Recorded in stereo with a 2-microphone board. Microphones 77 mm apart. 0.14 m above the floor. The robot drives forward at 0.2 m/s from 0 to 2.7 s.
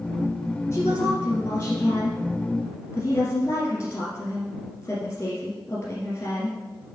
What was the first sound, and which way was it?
A woman speaking, 35° left (ahead or behind).